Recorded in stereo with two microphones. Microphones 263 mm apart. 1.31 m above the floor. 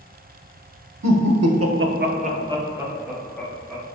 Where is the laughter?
85° right, 0.7 m; by 3.8 s 10° left (ahead or behind), 1.3 m.